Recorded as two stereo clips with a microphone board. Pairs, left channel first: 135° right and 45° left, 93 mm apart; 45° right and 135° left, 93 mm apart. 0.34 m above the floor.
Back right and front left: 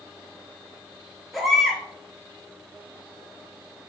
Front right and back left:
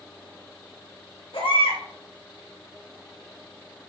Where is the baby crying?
45° right, 3.5 m.